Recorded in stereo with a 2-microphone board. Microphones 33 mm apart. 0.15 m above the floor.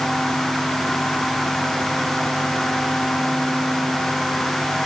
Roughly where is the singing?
No singing in this recording.